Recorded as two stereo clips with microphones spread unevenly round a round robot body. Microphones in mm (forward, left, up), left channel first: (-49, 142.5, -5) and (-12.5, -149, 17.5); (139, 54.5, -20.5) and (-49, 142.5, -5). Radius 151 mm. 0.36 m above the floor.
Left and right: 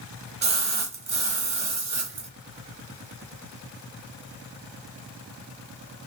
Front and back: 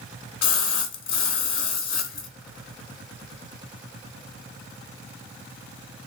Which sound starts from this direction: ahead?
A splash, at 0.4 s.